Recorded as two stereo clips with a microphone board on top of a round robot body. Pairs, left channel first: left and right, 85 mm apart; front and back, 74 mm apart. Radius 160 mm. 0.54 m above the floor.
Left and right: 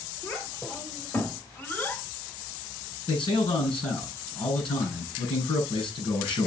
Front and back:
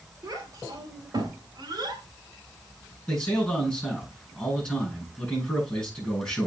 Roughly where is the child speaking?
Behind left.